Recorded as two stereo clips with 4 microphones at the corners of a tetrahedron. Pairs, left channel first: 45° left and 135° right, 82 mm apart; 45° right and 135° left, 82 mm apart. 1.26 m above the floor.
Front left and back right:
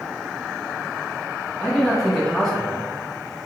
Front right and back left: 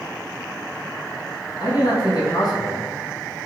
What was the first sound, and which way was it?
A man speaking, 40° right.